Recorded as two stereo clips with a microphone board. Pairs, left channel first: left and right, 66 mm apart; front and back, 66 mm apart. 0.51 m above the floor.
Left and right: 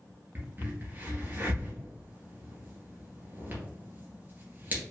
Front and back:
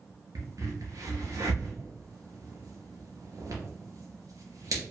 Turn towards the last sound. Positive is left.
turn(degrees=-155)